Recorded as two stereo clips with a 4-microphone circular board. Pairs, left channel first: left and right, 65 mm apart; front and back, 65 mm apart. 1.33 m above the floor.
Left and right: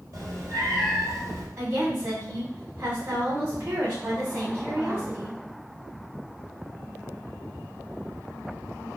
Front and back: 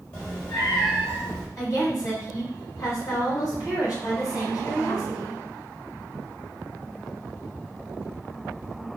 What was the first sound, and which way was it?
A cat meowing, 55° right.